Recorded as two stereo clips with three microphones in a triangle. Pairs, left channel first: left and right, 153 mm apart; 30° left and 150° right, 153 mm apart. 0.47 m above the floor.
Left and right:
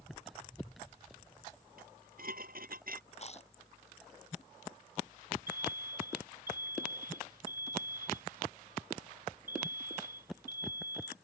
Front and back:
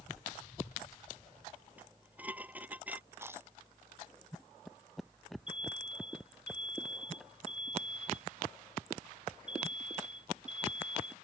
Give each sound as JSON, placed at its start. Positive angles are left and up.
{"t": 1.8, "sound": "dishes clattering", "azimuth_deg": -70}
{"t": 3.1, "sound": "chewing", "azimuth_deg": 135}
{"t": 5.5, "sound": "an alarm", "azimuth_deg": -65}